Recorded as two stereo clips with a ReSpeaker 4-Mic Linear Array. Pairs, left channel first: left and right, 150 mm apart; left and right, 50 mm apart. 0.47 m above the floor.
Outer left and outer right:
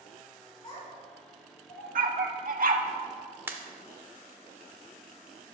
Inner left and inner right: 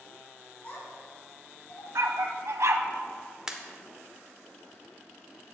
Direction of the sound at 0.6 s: 35° left (ahead or behind).